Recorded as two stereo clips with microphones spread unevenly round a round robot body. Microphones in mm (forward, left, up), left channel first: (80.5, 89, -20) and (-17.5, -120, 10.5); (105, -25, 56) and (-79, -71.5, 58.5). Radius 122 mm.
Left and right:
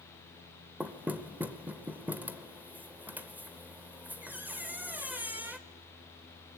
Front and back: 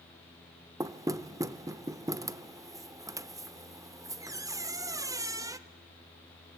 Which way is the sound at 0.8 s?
155° left.